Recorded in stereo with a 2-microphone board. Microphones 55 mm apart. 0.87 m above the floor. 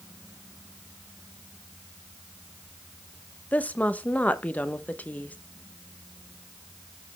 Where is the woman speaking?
25° left (ahead or behind), 0.6 m.